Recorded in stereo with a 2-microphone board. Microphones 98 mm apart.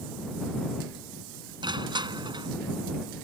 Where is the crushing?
55° right (ahead or behind).